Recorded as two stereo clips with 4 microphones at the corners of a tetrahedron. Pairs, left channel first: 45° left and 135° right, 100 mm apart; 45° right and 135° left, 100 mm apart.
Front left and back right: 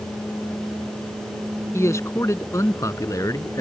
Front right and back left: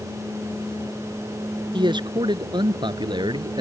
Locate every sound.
1.7 s a man speaking: 105° left; by 3.6 s 100° left